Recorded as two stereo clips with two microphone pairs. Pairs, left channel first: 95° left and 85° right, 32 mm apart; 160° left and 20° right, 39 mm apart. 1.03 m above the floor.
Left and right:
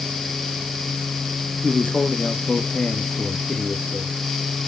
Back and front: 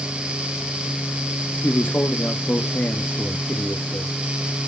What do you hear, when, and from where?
1.6 s a man speaking: 160° left, 1.4 m